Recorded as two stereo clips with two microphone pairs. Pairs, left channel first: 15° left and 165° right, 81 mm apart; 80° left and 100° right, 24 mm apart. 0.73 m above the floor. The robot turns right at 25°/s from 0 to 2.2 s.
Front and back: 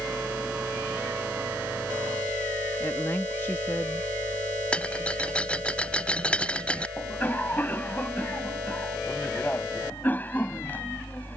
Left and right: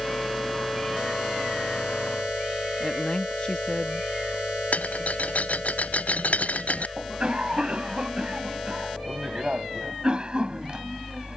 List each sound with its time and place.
2.8 s a woman speaking: 65° left
4.7 s a rattle: 90° left
7.0 s a cough: 50° right